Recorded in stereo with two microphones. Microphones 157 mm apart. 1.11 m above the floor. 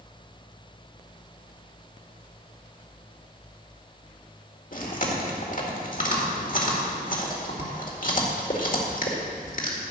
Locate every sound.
4.7 s chewing: 60° left (ahead or behind), 2.0 m